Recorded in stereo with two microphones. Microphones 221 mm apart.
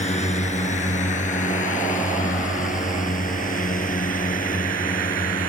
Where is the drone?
30° left (ahead or behind); by 5.5 s 40° left (ahead or behind).